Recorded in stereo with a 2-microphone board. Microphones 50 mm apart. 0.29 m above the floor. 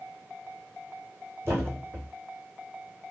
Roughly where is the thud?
Right.